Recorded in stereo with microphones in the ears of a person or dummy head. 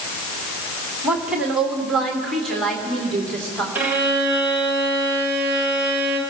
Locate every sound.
1.0 s a woman speaking: 10° right (ahead or behind), 1.8 m; by 3.6 s centre (ahead or behind), 3.5 m
3.8 s a violin: 15° right (ahead or behind), 2 m